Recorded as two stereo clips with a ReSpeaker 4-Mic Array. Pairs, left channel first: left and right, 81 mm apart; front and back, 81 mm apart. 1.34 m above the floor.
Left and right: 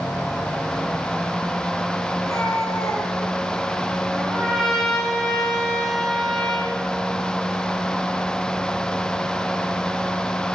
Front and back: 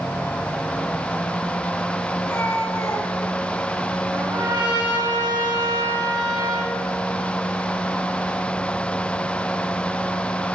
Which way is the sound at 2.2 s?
60° left.